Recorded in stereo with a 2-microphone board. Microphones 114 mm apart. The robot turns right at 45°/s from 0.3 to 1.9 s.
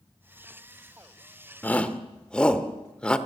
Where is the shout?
15° left (ahead or behind), 1.2 m; by 3.2 s 10° left (ahead or behind), 1.2 m.